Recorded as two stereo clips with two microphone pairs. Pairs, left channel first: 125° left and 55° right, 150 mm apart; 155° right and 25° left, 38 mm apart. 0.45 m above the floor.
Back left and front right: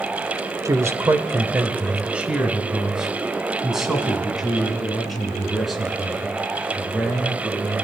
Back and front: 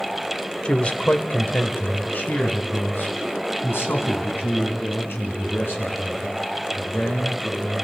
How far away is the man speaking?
About 1.5 m.